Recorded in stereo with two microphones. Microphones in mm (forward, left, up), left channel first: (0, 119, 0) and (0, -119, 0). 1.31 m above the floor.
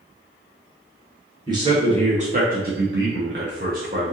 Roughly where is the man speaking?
Centre.